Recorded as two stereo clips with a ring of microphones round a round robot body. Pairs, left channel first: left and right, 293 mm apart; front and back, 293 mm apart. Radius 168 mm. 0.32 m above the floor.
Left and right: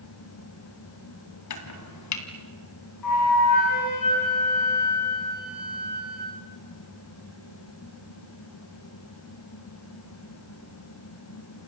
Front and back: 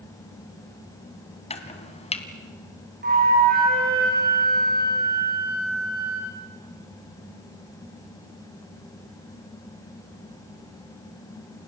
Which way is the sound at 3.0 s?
120° left.